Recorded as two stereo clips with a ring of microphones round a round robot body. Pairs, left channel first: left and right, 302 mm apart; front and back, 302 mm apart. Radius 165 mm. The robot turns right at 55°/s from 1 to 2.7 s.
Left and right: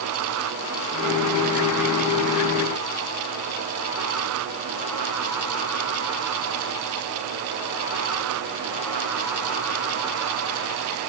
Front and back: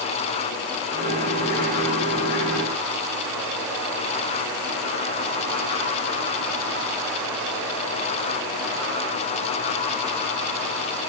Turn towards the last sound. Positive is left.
No sound to turn to.